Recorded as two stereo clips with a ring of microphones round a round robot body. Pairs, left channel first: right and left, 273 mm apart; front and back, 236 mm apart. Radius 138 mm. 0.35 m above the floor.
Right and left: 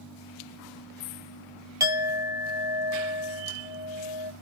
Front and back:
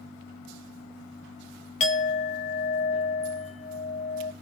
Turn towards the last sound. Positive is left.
turn(degrees=25)